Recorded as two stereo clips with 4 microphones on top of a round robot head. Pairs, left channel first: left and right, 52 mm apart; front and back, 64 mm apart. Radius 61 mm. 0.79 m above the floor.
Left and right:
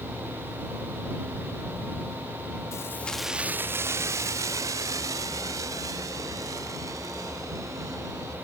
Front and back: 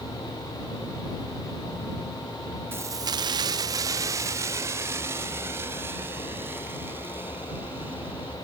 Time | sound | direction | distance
2.7 | keys jangling | 125° left | ?